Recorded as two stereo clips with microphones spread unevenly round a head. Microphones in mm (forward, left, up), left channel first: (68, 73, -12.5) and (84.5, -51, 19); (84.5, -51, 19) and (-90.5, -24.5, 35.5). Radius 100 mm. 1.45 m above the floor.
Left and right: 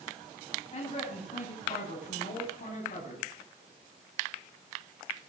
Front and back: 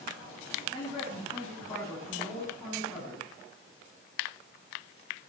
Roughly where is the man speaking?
Ahead left.